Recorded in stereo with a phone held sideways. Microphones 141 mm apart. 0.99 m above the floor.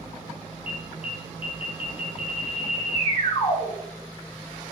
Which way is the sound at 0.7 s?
45° left (ahead or behind).